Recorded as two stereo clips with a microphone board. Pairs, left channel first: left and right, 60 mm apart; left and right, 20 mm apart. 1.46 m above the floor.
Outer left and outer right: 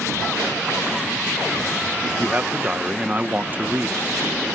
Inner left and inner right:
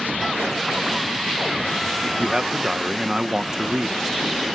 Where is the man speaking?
30° right (ahead or behind).